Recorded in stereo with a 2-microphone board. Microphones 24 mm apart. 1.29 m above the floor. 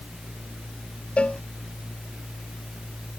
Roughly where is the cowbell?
Left.